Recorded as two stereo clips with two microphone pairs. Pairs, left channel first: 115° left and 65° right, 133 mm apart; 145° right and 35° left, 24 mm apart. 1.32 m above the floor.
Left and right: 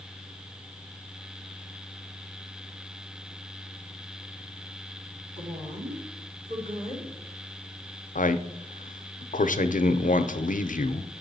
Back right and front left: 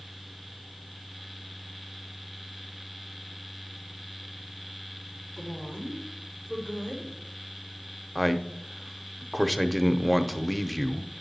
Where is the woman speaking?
90° right, 2.5 m.